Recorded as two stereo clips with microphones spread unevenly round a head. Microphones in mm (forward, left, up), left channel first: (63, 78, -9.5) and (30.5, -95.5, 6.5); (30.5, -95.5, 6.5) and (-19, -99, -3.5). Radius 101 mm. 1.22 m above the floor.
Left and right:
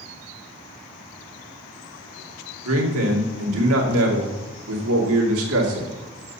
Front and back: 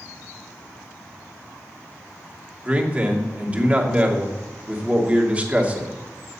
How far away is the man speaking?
About 2.5 m.